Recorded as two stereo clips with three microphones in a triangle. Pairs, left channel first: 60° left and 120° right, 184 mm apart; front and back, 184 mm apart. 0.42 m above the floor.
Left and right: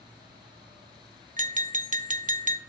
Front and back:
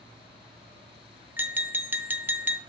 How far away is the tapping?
About 0.6 m.